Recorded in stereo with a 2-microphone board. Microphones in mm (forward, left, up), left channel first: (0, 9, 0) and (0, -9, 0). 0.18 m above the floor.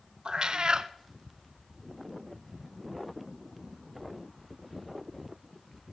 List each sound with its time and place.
0.2 s a cat meowing: 55° right (ahead or behind), 0.5 m